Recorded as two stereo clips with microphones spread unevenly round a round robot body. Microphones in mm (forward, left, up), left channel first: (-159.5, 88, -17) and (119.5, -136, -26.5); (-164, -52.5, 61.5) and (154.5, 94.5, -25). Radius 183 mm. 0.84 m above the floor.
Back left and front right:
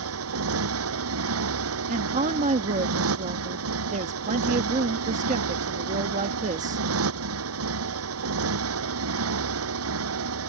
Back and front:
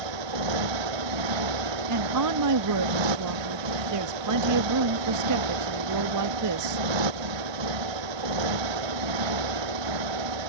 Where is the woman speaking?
30° left.